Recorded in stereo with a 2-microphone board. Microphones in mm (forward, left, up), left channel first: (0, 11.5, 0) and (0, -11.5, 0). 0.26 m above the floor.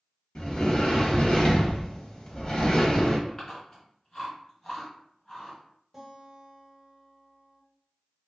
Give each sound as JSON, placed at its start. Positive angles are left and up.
{"t": 0.3, "sound": "a sliding door", "side_deg": 35, "distance_m": 0.7}
{"t": 3.3, "sound": "chewing", "side_deg": 25, "distance_m": 1.9}
{"t": 5.9, "sound": "a guitar", "side_deg": 0, "distance_m": 1.0}